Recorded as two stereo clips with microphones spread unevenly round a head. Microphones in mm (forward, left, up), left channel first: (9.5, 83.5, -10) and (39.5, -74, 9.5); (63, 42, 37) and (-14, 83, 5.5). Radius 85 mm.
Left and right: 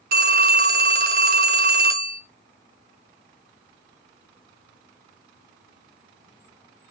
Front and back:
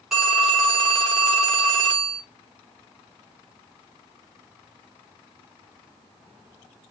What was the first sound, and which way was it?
A phone ringing, 115° right.